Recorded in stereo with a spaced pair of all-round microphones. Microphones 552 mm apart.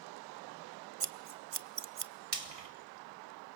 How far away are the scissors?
About 0.8 m.